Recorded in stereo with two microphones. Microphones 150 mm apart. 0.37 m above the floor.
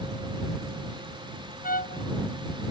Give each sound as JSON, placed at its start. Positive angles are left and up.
{"t": 1.6, "sound": "a trumpet", "side_deg": 75}